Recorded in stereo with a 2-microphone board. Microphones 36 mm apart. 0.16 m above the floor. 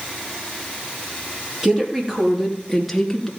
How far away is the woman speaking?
About 3.5 m.